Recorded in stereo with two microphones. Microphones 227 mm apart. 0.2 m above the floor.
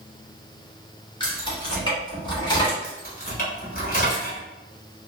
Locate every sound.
1.2 s keys jangling: 20° left (ahead or behind), 1.8 m
2.8 s keys jangling: 40° left (ahead or behind), 1.2 m